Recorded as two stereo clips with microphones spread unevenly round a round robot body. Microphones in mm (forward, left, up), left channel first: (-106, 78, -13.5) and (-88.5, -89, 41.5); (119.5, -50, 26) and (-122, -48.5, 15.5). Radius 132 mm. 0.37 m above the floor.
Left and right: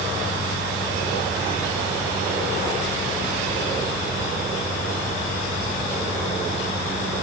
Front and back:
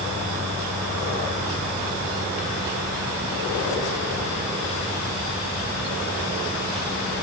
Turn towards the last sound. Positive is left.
No sound to turn to.